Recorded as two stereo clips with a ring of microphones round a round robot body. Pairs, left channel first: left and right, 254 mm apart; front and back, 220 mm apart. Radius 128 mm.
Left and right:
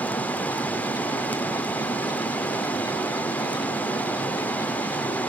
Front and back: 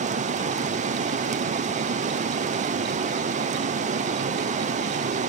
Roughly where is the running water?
Behind.